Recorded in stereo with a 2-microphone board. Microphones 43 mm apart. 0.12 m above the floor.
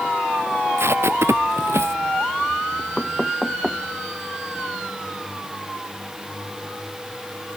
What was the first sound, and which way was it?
Tape being pulled, 75° right (ahead or behind).